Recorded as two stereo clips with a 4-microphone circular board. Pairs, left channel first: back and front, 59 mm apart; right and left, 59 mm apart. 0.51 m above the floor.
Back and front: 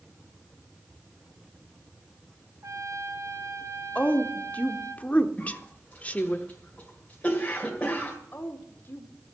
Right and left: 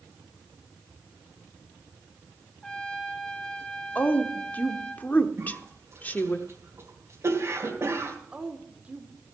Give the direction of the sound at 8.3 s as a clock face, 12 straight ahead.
7 o'clock.